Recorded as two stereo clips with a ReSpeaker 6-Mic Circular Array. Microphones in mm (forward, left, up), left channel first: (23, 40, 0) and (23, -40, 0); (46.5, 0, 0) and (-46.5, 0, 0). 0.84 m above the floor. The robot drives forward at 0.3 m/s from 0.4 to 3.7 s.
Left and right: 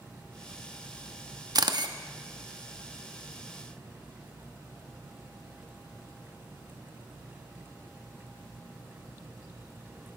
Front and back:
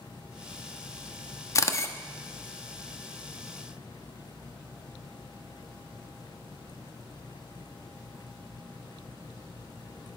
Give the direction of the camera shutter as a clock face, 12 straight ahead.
2 o'clock.